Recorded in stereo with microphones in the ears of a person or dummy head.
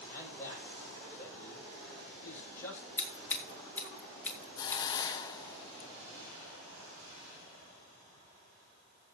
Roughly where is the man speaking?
Centre.